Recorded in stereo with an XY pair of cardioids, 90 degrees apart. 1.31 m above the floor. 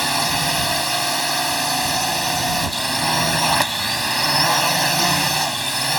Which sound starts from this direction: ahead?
A drone, at 0.0 s.